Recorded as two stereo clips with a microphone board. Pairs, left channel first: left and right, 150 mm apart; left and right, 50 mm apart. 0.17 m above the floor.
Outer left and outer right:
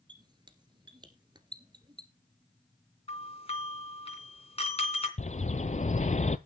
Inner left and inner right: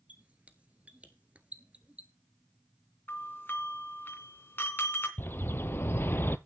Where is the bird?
50° left (ahead or behind), 0.6 m.